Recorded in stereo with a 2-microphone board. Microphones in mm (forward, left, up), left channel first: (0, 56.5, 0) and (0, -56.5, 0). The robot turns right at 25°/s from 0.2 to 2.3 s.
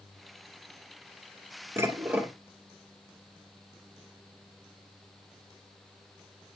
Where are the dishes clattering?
20° right (ahead or behind), 1.7 m; by 2.3 s 10° right (ahead or behind), 1.7 m.